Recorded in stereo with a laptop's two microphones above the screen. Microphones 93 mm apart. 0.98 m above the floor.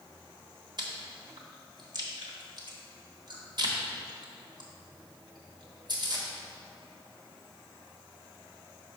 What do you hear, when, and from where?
0.8 s chewing: 55° right (ahead or behind), 1.2 m